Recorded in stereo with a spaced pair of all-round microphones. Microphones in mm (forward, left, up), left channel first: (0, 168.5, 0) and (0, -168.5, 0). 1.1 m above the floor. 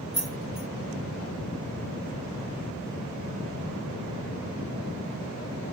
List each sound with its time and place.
0.1 s keys jangling: 55° right (ahead or behind), 4.5 m